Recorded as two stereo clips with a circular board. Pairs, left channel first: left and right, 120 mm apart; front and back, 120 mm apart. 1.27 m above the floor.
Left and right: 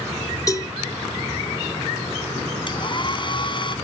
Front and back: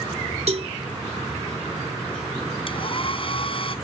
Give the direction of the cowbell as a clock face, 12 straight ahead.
7 o'clock.